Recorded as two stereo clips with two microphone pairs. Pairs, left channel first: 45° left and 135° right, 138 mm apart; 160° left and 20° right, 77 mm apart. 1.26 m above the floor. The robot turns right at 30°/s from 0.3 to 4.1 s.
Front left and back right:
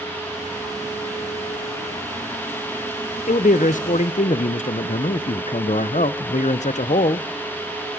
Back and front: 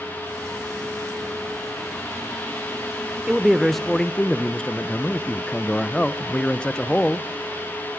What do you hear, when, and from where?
3.3 s a man speaking: 50° left, 0.6 m; by 7.3 s 75° left, 0.6 m